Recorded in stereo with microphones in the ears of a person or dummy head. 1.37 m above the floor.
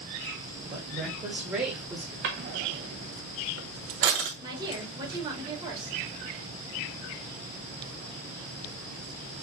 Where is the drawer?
40° right (ahead or behind), 0.7 m.